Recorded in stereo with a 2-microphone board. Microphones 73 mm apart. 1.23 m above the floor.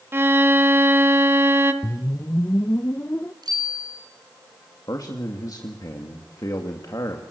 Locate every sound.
0.1 s a violin: 30° right (ahead or behind), 1.6 m
1.8 s a whoosh: 35° left (ahead or behind), 0.6 m
3.4 s a bicycle bell: 70° right (ahead or behind), 8 m
4.9 s a man speaking: 60° left (ahead or behind), 2.5 m